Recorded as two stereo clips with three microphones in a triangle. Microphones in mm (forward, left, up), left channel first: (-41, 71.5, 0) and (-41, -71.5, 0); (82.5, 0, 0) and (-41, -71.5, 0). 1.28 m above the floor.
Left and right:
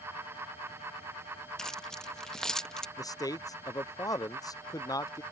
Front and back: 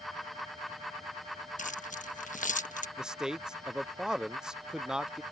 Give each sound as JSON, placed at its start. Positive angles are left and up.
{"t": 1.6, "sound": "keys jangling", "azimuth_deg": 5}
{"t": 3.0, "sound": "a man speaking", "azimuth_deg": 130}